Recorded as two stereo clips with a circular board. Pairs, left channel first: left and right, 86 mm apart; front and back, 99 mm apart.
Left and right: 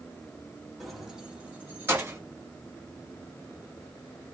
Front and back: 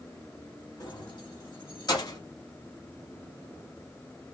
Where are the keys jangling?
Straight ahead, 1.2 m; by 2.2 s 35° right, 1.7 m.